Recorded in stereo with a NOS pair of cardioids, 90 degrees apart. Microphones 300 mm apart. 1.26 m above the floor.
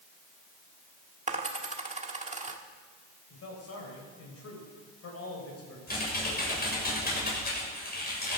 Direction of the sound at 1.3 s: 25° right.